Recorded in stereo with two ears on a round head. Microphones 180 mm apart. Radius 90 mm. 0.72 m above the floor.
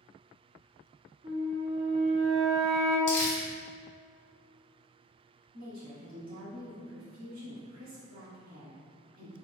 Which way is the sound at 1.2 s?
25° right (ahead or behind).